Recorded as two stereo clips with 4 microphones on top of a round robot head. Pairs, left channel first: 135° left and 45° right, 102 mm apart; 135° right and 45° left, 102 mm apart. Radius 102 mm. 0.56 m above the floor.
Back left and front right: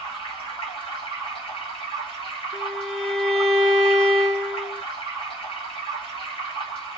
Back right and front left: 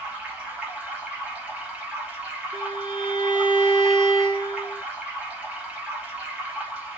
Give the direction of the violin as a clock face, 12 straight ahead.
10 o'clock.